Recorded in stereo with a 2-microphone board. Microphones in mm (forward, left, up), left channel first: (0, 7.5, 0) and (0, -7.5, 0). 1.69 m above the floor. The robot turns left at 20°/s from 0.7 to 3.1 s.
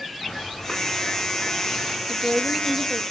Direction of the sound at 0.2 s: 45° left (ahead or behind).